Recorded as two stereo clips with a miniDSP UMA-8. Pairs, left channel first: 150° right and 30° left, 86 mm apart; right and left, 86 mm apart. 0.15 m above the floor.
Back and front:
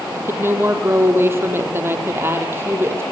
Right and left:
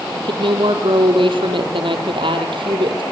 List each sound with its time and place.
0.1 s a woman speaking: 90° left, 4 m